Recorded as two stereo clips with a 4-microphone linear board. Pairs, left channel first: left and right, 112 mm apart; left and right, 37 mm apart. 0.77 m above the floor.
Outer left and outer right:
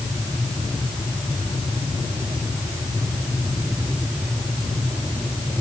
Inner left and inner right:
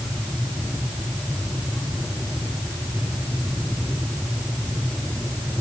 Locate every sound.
Only background noise.